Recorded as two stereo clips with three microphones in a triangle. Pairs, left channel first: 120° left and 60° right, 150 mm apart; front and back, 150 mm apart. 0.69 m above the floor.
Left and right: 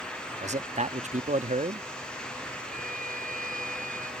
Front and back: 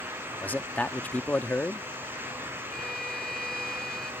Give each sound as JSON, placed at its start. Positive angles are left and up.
{"t": 0.4, "sound": "a man speaking", "azimuth_deg": -75}
{"t": 2.7, "sound": "a violin", "azimuth_deg": -85}